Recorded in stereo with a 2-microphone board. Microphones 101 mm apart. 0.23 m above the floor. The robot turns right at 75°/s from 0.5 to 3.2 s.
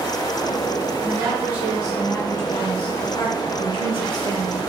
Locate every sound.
1.0 s a woman speaking: 60° right, 1.9 m; by 4.6 s 100° left, 1.9 m